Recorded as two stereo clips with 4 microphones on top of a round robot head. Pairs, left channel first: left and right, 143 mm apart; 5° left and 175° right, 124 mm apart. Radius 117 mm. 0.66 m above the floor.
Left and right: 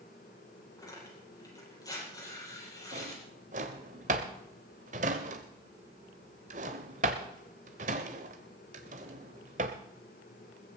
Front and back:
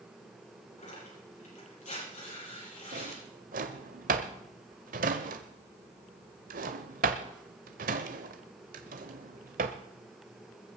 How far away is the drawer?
About 0.7 m.